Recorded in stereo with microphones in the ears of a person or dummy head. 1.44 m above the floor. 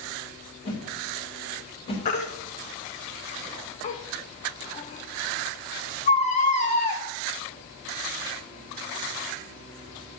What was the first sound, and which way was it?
A whoosh, 35° left (ahead or behind).